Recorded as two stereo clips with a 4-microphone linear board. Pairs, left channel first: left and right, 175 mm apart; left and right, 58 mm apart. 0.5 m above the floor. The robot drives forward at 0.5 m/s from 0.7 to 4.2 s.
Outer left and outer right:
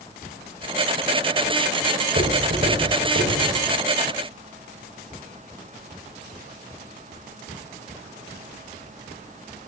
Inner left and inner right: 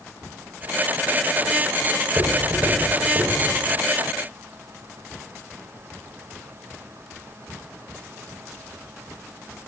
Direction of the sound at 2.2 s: 65° right (ahead or behind).